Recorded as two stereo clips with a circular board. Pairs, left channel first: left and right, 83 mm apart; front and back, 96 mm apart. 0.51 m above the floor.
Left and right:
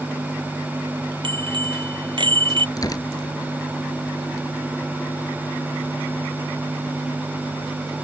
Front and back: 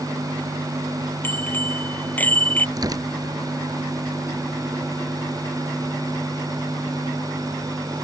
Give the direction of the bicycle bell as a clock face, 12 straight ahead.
2 o'clock.